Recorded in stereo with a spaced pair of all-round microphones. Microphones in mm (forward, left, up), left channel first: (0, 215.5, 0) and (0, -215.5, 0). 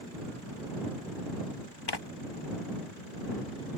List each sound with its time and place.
1.9 s tearing paper: 65° left (ahead or behind)